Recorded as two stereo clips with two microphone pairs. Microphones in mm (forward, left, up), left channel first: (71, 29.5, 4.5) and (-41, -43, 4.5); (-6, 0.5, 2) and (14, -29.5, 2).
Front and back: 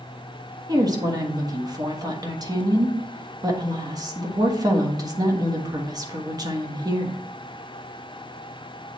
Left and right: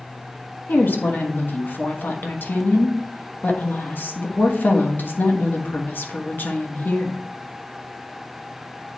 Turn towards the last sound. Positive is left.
turn(degrees=150)